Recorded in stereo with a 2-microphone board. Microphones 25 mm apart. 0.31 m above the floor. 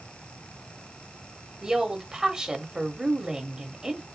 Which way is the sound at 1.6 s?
30° right (ahead or behind).